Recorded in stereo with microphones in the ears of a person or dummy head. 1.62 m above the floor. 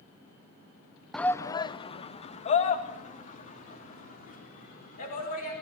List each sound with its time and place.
1.1 s a shout: 5° left (ahead or behind), 0.8 m; by 5.6 s 50° left (ahead or behind), 6 m